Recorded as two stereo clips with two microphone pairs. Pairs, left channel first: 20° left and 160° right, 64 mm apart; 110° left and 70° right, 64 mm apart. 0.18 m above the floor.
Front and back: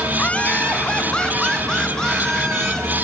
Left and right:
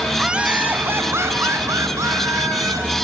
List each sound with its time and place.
0.1 s laughter: straight ahead, 1.6 m; by 2.9 s 65° right, 4 m